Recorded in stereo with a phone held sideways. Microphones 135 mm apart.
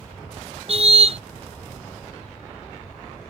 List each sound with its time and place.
0.7 s a car horn: 50° right (ahead or behind)